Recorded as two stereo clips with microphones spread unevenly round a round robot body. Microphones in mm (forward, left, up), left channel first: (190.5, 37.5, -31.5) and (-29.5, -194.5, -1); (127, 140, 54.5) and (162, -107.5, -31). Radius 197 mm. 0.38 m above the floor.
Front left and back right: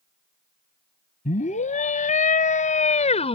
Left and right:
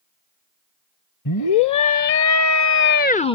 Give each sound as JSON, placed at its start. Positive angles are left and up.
{"t": 1.2, "sound": "a scream", "azimuth_deg": 115}